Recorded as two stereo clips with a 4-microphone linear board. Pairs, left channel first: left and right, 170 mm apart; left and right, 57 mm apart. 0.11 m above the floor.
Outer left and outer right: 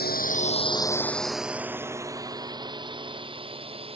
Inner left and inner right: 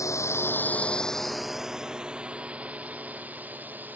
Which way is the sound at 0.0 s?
65° left (ahead or behind).